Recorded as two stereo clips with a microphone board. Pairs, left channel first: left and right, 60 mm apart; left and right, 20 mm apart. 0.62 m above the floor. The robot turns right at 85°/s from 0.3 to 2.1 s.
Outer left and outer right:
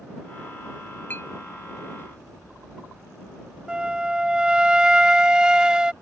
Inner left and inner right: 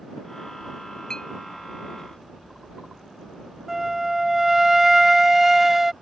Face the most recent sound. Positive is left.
turn(degrees=-15)  # may be behind; listen again after turning